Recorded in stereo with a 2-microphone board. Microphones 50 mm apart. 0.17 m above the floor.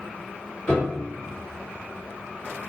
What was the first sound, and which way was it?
A piano, 15° left (ahead or behind).